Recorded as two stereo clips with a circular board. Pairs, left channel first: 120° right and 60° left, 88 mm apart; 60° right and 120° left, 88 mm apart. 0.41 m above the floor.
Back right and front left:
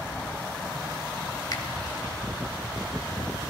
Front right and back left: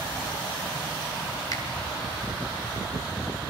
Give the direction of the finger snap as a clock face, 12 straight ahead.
3 o'clock.